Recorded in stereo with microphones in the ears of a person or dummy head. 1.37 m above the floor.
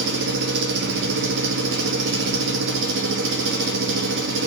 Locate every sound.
0.0 s an engine running: 60° right (ahead or behind), 1.1 m